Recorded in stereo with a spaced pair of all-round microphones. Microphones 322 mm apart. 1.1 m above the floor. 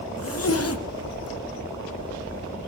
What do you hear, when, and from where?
0.2 s a zipper: 45° left (ahead or behind), 0.7 m